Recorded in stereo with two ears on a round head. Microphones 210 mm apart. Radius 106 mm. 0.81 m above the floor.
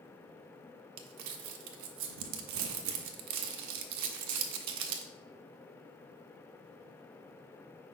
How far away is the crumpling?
About 0.7 m.